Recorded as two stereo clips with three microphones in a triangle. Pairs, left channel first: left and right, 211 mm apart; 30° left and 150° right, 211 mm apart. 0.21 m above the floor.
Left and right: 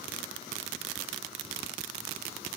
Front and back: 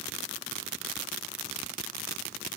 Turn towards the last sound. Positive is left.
No sound to turn to.